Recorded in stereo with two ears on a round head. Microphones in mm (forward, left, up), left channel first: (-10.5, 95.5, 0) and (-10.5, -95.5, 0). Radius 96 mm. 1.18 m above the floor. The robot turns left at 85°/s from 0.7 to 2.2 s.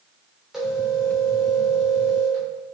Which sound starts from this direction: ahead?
A phone ringing, at 0.5 s.